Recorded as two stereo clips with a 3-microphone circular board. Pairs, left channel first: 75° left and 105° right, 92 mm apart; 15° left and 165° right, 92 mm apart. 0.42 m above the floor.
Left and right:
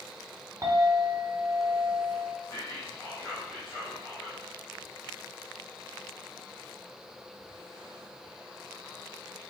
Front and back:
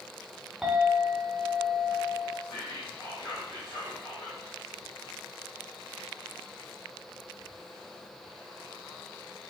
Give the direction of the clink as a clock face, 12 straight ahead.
3 o'clock.